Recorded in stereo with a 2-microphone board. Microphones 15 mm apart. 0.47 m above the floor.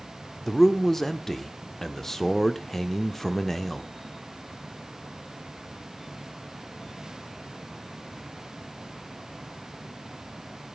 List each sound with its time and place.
0.5 s a man speaking: 30° left (ahead or behind), 0.8 m